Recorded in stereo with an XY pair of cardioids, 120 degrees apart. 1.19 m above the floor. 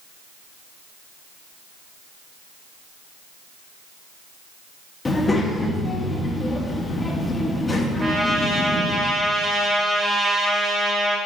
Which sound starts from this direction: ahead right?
A trumpet, at 8.0 s.